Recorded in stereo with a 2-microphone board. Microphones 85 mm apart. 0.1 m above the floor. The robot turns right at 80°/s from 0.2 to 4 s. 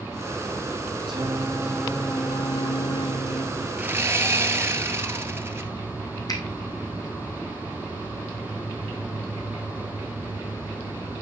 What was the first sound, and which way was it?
Singing, 65° right.